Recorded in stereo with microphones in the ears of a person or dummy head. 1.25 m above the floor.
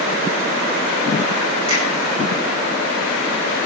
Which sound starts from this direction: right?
A finger snap, at 1.7 s.